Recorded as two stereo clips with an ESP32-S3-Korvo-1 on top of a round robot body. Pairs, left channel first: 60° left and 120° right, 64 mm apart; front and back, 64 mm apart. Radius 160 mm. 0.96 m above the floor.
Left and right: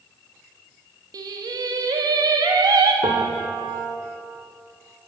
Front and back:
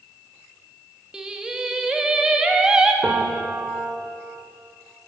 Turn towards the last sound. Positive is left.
turn(degrees=-115)